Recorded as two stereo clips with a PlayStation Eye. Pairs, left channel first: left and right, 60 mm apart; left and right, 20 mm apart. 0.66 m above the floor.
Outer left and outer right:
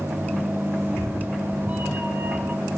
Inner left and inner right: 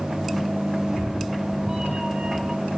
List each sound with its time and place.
0.8 s a cat meowing: 30° right (ahead or behind), 1.0 m